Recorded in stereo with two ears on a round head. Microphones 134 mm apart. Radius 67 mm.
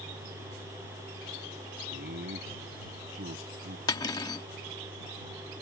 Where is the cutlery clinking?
25° left (ahead or behind).